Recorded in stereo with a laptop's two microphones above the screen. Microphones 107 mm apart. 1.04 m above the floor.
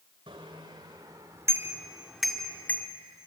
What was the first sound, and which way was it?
A bicycle bell, 50° right (ahead or behind).